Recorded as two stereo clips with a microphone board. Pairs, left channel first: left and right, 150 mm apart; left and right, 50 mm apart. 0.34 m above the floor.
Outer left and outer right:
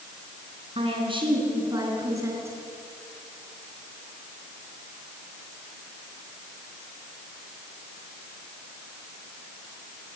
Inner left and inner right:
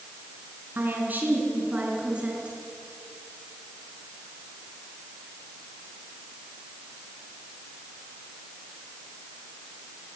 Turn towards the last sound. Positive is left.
turn(degrees=-20)  # may be behind; listen again after turning